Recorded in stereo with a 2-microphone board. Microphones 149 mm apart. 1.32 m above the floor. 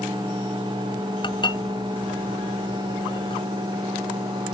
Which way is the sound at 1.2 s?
35° left (ahead or behind).